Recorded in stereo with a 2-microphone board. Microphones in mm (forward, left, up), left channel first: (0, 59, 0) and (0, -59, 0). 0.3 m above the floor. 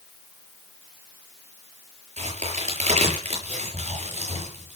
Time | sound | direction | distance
2.2 | a crack | 70° right (ahead or behind) | 7.5 m